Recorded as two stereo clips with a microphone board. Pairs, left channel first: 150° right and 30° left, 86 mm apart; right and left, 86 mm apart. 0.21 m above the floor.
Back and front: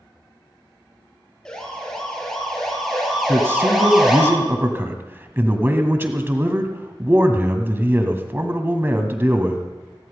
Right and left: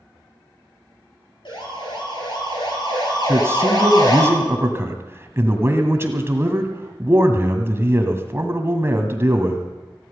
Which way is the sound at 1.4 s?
70° right.